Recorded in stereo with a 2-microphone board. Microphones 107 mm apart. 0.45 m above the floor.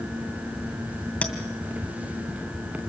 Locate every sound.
1.2 s a clink: 10° left (ahead or behind), 2 m